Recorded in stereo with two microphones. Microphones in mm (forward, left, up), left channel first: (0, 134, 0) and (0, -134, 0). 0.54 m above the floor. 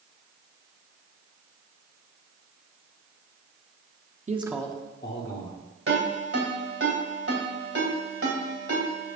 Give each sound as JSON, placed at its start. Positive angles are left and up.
{"t": 4.3, "sound": "a man speaking", "side_deg": -30, "distance_m": 0.7}
{"t": 5.9, "sound": "a ringtone", "side_deg": -55, "distance_m": 2.5}